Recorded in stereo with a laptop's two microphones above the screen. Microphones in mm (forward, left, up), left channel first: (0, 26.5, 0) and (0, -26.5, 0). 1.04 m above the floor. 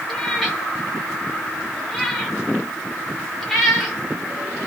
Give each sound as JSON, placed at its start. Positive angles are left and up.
{"t": 0.1, "sound": "a cat meowing", "side_deg": 5, "distance_m": 1.5}